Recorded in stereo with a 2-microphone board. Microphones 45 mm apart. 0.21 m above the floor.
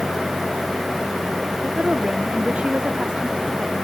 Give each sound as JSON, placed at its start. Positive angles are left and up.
{"t": 1.6, "sound": "a woman speaking", "side_deg": -25}